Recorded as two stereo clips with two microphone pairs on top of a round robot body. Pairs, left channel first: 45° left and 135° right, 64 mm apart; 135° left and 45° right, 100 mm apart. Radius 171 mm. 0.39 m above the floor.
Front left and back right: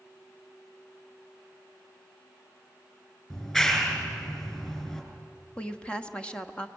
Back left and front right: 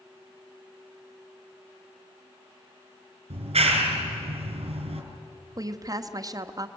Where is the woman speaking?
20° right, 1.2 m.